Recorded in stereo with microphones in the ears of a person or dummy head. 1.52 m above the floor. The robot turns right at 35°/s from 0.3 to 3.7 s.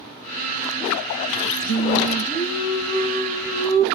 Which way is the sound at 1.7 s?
125° left.